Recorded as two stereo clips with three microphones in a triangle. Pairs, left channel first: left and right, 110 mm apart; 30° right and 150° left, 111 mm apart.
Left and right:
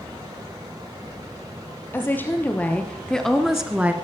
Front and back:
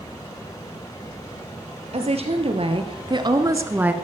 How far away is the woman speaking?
About 2.5 m.